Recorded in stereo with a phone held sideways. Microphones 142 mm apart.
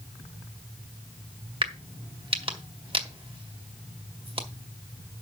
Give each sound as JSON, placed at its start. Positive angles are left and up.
{"t": 1.6, "sound": "a crack", "side_deg": -45, "distance_m": 1.7}